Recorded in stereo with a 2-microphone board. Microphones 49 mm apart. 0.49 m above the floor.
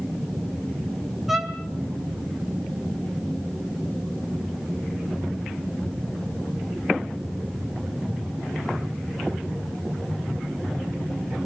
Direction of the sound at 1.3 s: 5° right (ahead or behind).